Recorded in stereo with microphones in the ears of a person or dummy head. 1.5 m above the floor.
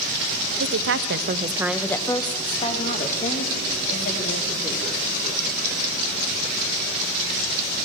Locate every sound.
0.6 s a woman speaking: 70° right (ahead or behind), 1.0 m; by 4.9 s 45° left (ahead or behind), 3.5 m